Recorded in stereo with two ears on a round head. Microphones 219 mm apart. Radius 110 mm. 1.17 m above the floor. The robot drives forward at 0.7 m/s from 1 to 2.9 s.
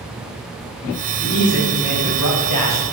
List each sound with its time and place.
1.2 s a man speaking: 40° left (ahead or behind), 1.1 m; by 2.8 s 70° left (ahead or behind), 0.8 m